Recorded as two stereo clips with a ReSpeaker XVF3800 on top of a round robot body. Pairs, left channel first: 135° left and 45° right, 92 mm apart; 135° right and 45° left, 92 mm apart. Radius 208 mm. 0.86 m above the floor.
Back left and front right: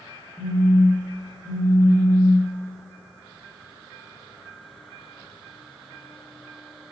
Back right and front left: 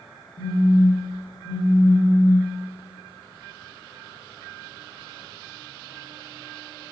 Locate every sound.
0.4 s a phone buzzing: 160° right, 1.7 m